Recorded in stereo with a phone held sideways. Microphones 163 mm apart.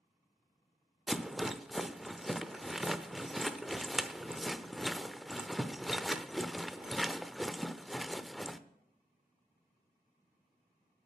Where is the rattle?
Centre (ahead or behind), 0.6 m.